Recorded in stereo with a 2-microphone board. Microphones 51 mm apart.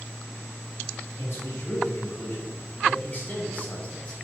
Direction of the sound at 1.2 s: 45° left (ahead or behind).